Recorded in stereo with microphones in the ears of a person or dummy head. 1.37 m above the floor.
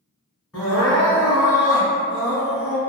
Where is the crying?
Centre (ahead or behind), 1.7 m.